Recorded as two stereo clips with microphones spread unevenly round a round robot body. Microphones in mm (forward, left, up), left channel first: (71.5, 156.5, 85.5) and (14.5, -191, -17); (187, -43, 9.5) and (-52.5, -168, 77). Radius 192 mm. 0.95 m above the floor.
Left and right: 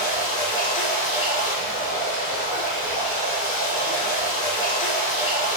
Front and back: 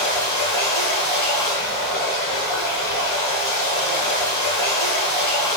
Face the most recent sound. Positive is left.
turn(degrees=50)